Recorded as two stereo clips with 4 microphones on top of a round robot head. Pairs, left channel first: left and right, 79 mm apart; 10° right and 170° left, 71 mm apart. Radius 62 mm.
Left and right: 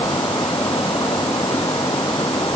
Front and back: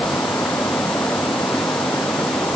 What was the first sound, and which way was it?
Only background noise.